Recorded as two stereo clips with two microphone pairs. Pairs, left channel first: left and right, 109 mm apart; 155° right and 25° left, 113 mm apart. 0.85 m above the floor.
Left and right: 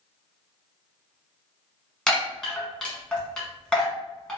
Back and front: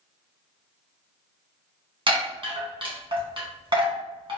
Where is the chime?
10° left, 0.9 m.